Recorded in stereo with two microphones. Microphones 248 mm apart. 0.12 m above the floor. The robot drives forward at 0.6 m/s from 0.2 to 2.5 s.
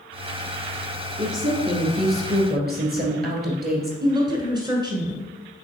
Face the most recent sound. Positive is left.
turn(degrees=-20)  # may be behind; listen again after turning